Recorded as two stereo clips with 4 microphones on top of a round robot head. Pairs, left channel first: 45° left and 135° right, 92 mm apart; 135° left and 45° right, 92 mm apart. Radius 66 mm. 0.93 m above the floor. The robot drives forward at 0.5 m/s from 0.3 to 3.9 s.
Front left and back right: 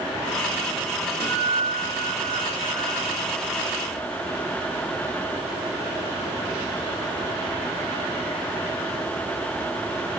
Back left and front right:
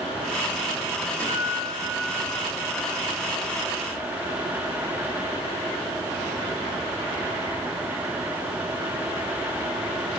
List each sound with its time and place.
1.2 s a guitar: 150° right, 4 m; by 3.1 s 155° right, 5 m